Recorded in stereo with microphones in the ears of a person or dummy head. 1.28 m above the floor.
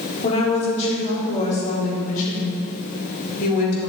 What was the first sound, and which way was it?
A woman speaking, 35° left (ahead or behind).